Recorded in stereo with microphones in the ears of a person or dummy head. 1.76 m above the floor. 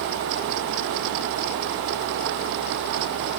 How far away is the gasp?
No gasp in this recording.